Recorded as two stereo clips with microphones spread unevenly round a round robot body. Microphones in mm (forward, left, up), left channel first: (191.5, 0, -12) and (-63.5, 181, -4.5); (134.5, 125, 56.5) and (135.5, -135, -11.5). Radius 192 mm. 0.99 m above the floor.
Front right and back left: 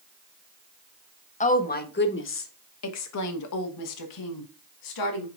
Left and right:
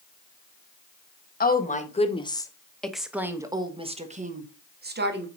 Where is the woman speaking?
30° left, 1.7 m; by 5.3 s 50° right, 2 m.